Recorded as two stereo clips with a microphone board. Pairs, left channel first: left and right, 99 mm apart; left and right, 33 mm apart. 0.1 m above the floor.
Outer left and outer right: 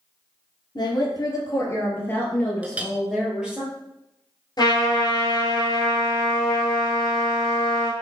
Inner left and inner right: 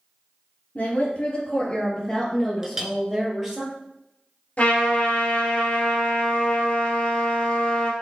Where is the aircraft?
I don't hear an aircraft.